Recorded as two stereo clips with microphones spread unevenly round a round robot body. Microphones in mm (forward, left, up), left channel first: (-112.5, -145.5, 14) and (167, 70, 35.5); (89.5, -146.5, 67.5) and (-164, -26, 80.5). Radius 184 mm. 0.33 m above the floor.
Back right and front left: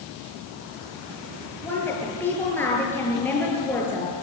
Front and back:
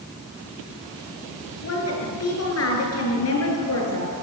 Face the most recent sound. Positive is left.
turn(degrees=-60)